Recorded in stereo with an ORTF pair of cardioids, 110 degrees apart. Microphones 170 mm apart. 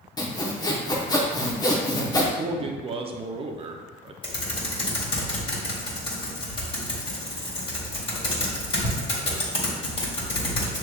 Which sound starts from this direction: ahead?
Sawing, at 0.2 s.